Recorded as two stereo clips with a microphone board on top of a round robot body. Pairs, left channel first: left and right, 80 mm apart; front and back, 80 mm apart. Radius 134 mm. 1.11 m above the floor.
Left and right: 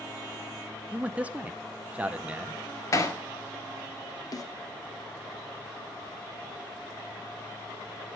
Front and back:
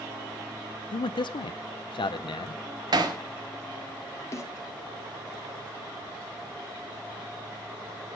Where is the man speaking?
15° right, 0.6 m.